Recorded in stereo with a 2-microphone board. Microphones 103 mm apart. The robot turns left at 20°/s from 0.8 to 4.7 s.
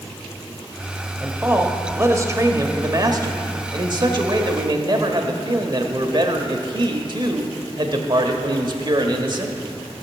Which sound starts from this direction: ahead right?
A man speaking, at 1.2 s.